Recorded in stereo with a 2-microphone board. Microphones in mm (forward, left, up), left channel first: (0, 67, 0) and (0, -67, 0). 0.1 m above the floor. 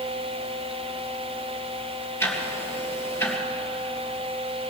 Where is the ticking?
20° left (ahead or behind), 2.5 m.